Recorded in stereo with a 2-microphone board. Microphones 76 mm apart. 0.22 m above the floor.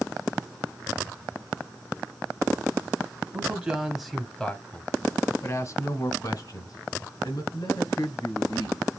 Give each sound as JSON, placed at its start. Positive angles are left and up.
{"t": 3.3, "sound": "a man speaking", "side_deg": -20, "distance_m": 1.0}